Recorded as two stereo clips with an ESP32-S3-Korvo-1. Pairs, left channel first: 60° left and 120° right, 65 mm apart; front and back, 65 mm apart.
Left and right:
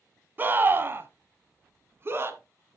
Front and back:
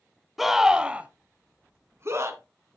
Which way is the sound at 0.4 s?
95° right.